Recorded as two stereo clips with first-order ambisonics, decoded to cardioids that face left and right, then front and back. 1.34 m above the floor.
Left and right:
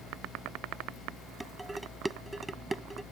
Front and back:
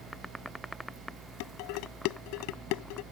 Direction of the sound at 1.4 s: 5° right.